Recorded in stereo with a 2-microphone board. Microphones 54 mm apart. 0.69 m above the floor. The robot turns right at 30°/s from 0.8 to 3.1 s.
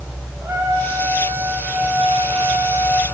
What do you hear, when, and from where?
0.4 s a trumpet: 70° right, 4 m; by 3.0 s straight ahead, 4 m